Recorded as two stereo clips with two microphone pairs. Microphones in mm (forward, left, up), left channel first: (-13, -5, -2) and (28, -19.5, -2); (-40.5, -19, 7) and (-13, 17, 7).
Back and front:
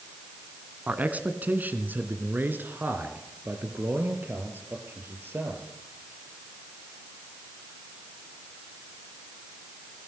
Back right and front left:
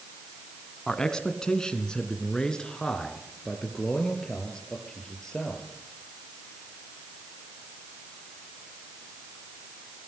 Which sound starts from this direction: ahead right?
A man speaking, at 0.9 s.